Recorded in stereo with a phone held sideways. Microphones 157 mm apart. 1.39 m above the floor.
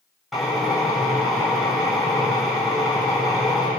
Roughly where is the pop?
I don't hear a pop.